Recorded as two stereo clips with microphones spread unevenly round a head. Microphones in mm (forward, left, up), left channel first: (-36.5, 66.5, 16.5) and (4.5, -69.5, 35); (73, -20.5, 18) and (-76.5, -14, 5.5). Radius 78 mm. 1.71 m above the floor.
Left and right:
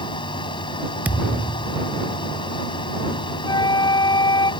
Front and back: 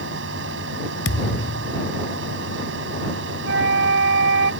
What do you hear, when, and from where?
0.0 s a fan: 165° left
1.1 s a thud: 5° left
3.4 s a flute: 170° left